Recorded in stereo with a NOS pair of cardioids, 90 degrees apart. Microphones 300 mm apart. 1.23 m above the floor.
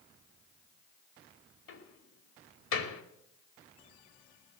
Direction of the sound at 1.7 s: 60° left.